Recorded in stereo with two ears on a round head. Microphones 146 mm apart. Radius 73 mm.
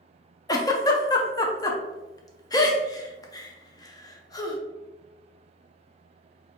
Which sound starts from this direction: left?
A giggle, at 0.5 s.